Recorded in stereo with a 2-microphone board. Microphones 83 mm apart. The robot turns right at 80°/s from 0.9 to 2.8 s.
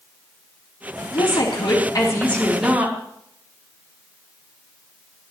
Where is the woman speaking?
65° left, 3.5 m; by 3.0 s 160° right, 3.5 m.